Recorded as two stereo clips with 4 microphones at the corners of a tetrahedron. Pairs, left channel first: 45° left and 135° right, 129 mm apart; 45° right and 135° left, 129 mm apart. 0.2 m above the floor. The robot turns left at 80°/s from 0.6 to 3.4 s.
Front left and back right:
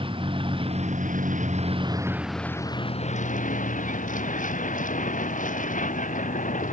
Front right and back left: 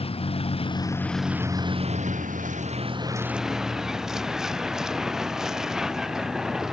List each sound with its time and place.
0.0 s a vehicle: 90° right; by 6.7 s 50° left